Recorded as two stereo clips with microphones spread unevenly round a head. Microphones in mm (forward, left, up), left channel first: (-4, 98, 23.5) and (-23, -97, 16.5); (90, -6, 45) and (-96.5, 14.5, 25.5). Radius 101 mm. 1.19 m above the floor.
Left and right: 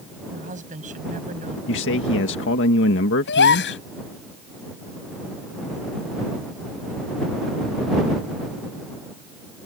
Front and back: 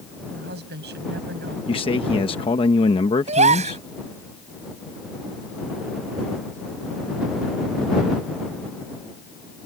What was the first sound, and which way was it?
A woman speaking, 150° right.